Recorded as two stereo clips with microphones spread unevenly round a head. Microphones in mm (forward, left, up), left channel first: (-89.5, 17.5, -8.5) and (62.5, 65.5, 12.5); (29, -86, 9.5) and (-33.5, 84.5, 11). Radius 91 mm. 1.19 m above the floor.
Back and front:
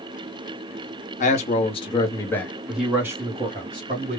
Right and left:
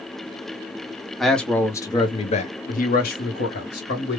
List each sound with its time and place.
1.2 s a man speaking: 160° right, 0.9 m; by 4.2 s 40° right, 1.3 m